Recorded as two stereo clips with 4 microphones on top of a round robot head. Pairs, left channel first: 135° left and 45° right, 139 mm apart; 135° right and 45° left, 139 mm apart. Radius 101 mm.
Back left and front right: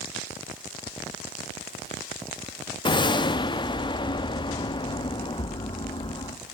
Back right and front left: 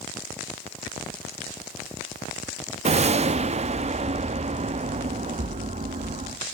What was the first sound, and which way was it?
A whoosh, 80° left.